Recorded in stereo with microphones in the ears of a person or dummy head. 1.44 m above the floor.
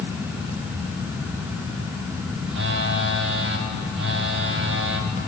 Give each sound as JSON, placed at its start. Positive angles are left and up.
{"t": 2.5, "sound": "a phone buzzing", "side_deg": -60, "distance_m": 0.8}